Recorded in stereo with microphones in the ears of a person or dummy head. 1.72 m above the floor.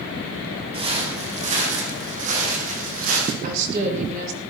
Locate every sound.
0.7 s footsteps: 35° right (ahead or behind), 4.5 m; by 3.3 s 55° right (ahead or behind), 5 m
3.4 s a woman speaking: 45° right (ahead or behind), 3.5 m